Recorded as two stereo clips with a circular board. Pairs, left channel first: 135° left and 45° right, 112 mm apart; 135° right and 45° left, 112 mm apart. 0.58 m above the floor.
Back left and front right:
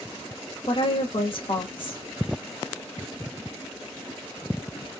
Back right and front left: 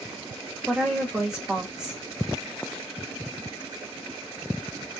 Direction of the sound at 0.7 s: 125° left.